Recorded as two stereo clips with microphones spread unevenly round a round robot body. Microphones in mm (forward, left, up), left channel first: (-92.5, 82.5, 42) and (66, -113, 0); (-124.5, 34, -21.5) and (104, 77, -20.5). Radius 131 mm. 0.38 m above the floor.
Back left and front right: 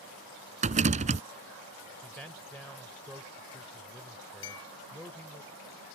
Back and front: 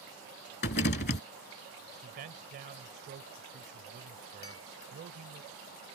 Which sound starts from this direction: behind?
A clink, at 4.4 s.